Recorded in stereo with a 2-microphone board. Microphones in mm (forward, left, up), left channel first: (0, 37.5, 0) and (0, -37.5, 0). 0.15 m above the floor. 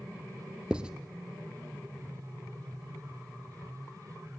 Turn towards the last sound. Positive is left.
turn(degrees=-10)  # may be behind; listen again after turning